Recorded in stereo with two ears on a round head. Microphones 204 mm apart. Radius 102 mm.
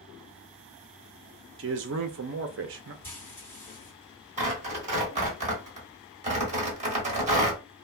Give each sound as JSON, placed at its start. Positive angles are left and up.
{"t": 1.6, "sound": "a man speaking", "side_deg": -50, "distance_m": 0.6}
{"t": 3.0, "sound": "frying", "side_deg": 10, "distance_m": 1.7}
{"t": 4.4, "sound": "tearing paper", "side_deg": -30, "distance_m": 1.4}